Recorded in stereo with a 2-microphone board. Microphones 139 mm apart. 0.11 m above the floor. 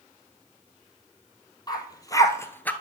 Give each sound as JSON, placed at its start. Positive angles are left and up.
{"t": 1.7, "sound": "a dog barking", "side_deg": 30, "distance_m": 1.2}